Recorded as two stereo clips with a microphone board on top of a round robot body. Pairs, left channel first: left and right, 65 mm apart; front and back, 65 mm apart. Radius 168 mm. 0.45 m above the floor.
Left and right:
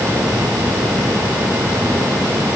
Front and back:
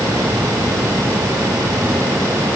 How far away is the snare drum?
I don't hear a snare drum.